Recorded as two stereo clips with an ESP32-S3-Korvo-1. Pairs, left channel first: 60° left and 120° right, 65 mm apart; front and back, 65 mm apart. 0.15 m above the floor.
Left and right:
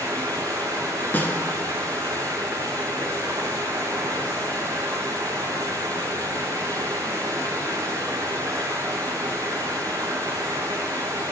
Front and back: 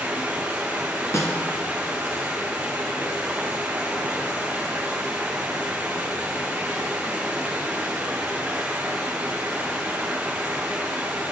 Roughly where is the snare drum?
Ahead.